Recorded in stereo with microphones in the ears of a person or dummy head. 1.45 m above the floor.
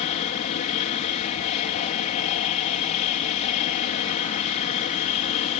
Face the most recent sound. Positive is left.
turn(degrees=35)  # may be behind; listen again after turning